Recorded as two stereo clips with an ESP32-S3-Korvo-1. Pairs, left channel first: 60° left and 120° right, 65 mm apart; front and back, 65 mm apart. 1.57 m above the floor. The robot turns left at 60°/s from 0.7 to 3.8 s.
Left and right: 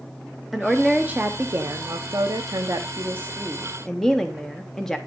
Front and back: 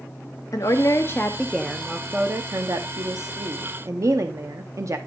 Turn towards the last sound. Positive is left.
turn(degrees=145)